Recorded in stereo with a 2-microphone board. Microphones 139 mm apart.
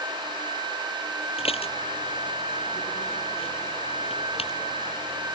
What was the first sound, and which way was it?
Dishes clattering, 45° left (ahead or behind).